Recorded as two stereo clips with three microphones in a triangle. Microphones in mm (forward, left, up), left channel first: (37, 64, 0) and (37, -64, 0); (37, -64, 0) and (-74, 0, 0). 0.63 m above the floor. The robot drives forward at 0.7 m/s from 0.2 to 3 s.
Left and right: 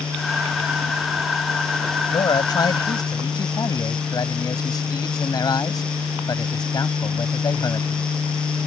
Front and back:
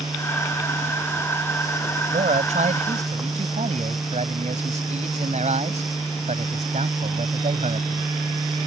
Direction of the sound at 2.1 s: 140° left.